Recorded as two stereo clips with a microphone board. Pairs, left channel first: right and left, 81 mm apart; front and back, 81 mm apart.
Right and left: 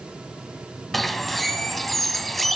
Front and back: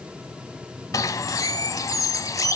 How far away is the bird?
About 0.8 m.